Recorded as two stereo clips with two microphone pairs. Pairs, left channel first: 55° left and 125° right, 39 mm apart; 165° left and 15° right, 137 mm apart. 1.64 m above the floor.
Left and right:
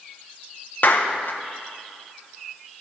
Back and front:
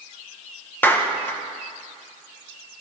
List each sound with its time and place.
0.8 s a clap: 90° left, 1.1 m